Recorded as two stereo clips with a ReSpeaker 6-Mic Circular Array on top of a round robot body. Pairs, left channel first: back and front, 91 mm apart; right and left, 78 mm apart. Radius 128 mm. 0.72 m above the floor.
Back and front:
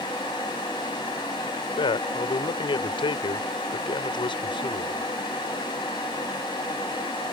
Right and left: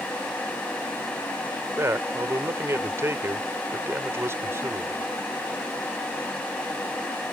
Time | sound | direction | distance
1.8 | a man speaking | 150° left | ?